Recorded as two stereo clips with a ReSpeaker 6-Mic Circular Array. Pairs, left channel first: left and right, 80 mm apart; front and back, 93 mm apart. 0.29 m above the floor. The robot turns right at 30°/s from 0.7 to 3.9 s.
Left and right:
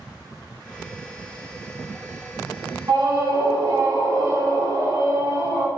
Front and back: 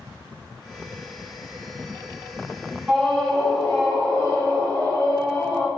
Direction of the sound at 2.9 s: 90° right.